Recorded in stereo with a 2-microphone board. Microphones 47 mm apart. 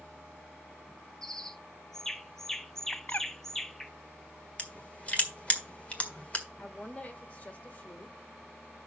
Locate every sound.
1.2 s a bird: 10° left (ahead or behind), 0.5 m
2.9 s a bird: 35° left (ahead or behind), 0.5 m
4.6 s crushing: 30° left (ahead or behind), 1.6 m
6.6 s a woman speaking: 30° left (ahead or behind), 1.4 m